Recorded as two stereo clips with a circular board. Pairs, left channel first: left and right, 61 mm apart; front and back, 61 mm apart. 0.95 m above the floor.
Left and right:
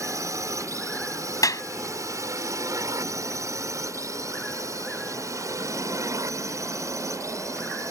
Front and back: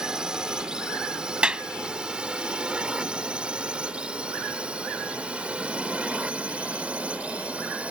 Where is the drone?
100° right; by 7.9 s 110° right.